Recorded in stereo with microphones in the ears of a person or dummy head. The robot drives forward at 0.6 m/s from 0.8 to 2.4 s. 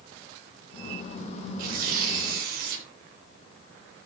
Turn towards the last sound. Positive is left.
turn(degrees=-55)  # may be behind; listen again after turning